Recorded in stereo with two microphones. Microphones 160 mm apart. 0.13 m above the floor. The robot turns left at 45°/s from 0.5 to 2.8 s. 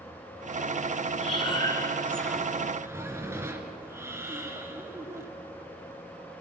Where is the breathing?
50° left, 2 m; by 5.3 s 20° right, 2 m.